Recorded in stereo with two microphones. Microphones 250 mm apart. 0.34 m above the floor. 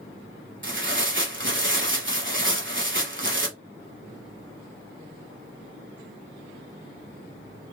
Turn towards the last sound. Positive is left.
turn(degrees=-50)  # may be behind; listen again after turning